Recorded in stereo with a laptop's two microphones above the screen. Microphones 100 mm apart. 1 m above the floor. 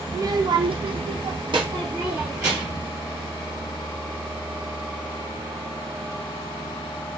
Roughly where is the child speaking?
Right.